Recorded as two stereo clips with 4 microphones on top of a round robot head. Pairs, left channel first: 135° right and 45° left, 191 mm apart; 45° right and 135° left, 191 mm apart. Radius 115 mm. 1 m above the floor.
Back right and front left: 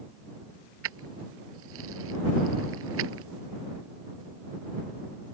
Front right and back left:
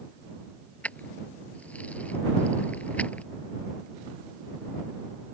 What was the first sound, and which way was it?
Keys jangling, 35° left.